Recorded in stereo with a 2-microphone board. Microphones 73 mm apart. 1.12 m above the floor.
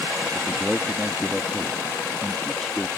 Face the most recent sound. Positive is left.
turn(degrees=0)  # may be behind; listen again after turning